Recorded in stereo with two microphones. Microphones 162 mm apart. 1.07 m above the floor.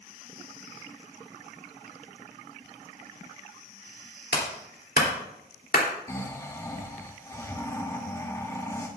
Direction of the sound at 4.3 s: 85° left.